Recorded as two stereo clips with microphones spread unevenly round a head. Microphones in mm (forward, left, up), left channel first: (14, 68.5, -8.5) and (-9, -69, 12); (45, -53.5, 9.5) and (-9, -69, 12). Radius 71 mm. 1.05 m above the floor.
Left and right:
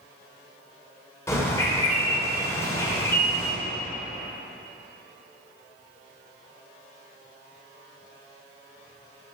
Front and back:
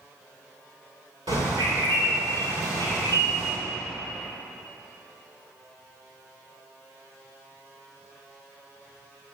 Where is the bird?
155° left, 3 m.